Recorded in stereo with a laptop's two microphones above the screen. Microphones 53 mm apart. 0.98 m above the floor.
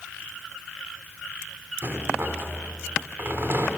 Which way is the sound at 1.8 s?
50° right (ahead or behind).